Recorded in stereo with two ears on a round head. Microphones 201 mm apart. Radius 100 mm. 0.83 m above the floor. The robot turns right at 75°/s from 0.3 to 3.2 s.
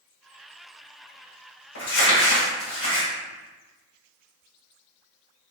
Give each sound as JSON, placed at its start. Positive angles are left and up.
{"t": 1.8, "sound": "crumpling", "azimuth_deg": 65, "distance_m": 1.8}